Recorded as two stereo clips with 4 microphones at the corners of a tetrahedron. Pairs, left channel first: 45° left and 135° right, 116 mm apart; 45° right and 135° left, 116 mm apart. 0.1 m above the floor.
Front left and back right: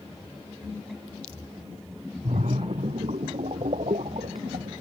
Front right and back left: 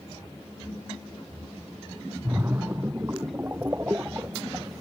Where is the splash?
155° right.